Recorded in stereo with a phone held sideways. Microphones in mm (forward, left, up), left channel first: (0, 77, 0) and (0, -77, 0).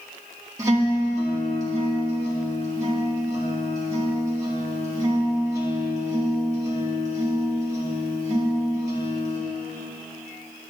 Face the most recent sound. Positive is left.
turn(degrees=-20)  # may be behind; listen again after turning